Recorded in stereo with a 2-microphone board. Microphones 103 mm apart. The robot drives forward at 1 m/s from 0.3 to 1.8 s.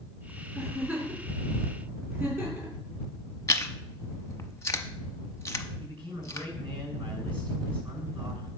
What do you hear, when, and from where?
0.6 s a giggle: 20° right (ahead or behind), 5 m; by 2.8 s 30° right (ahead or behind), 4 m
3.5 s chewing: 30° left (ahead or behind), 0.7 m
5.8 s a man speaking: 55° right (ahead or behind), 6.5 m